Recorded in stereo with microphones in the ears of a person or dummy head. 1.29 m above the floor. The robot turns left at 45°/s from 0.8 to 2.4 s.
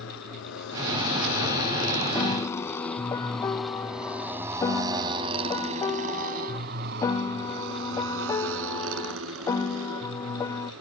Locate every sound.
0.0 s a motorcycle: 75° left (ahead or behind); by 10.8 s 85° right
2.1 s a piano: 10° left (ahead or behind); by 10.7 s 20° left (ahead or behind)